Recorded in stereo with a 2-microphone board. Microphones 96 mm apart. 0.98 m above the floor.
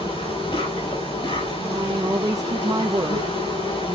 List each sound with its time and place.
0.0 s an insect: 80° left, 6.5 m
1.6 s a woman speaking: 40° right (ahead or behind), 0.7 m